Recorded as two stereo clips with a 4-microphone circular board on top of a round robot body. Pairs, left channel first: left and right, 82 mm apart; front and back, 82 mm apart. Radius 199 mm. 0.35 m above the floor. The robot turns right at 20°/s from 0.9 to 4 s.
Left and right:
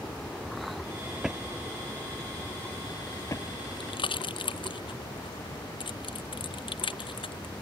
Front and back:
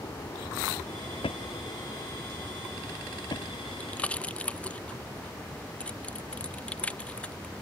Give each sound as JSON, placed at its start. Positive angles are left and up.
{"t": 0.0, "sound": "an aircraft", "azimuth_deg": 10}
{"t": 1.2, "sound": "a drawer", "azimuth_deg": -5}
{"t": 3.8, "sound": "a pop", "azimuth_deg": 70}